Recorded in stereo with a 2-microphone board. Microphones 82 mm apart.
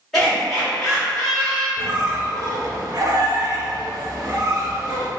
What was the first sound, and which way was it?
Laughter, centre (ahead or behind).